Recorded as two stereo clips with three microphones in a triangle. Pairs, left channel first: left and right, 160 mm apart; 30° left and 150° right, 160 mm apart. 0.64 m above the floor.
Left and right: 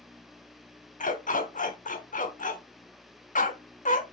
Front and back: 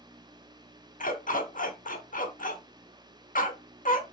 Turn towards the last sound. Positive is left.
turn(degrees=60)